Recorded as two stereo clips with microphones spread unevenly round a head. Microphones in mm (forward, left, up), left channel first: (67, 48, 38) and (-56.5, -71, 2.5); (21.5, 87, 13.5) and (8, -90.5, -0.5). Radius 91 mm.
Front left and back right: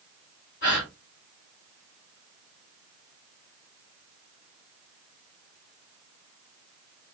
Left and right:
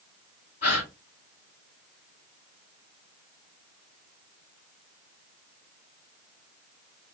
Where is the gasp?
40° left, 3.5 m.